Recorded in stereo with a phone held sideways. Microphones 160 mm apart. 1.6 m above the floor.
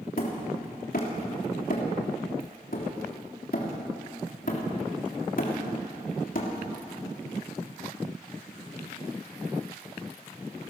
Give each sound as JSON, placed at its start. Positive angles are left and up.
{"t": 0.2, "sound": "hammering", "side_deg": 60, "distance_m": 3.5}